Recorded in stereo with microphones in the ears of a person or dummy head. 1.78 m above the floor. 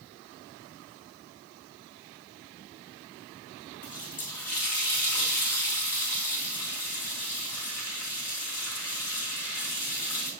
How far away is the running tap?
About 0.8 m.